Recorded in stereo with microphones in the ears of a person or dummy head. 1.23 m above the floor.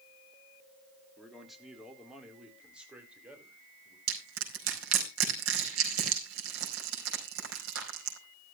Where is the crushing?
85° right, 4.5 m.